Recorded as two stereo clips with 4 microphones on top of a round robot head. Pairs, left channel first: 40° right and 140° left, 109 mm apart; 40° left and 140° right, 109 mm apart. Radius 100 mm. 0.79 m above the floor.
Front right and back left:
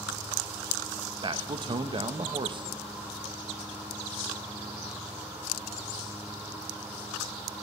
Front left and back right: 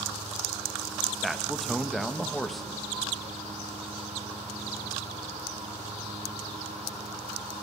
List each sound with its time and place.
1.2 s a man speaking: 130° left, 0.9 m